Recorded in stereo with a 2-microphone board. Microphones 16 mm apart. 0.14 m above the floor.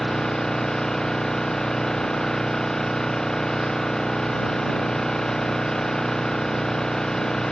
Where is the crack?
I don't hear a crack.